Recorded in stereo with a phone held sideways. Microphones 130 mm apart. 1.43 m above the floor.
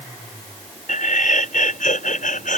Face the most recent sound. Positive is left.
turn(degrees=80)